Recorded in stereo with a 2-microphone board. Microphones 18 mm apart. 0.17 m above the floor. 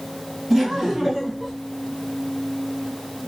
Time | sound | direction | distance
0.5 | laughter | 10° right (ahead or behind) | 2.5 m